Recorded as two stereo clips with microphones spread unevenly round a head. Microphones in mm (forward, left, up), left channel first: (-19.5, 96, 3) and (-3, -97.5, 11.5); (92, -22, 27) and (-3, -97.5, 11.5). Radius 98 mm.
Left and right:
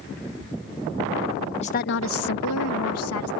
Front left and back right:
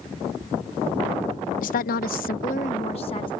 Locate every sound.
1.6 s a woman speaking: 35° left; by 3.3 s 105° left